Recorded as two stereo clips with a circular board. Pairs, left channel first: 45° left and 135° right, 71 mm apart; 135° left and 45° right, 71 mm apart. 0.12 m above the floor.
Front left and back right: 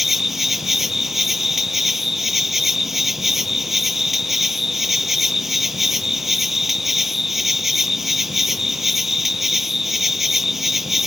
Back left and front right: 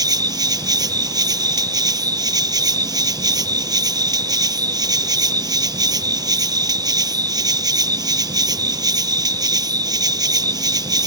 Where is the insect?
45° right.